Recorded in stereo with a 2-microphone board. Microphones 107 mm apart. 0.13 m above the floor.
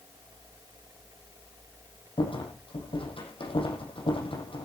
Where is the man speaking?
No man speaking in this recording.